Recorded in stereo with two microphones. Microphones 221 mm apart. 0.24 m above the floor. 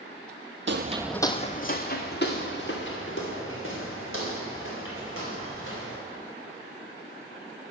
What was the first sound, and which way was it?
Footsteps, 60° right (ahead or behind).